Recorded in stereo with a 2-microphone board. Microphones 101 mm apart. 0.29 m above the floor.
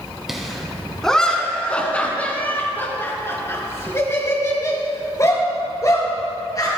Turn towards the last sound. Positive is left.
turn(degrees=40)  # may be behind; listen again after turning